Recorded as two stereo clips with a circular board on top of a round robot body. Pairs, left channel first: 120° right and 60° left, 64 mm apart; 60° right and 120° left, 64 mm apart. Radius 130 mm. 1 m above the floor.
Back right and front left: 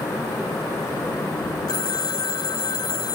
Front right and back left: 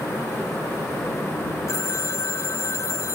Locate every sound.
1.7 s a phone ringing: 105° right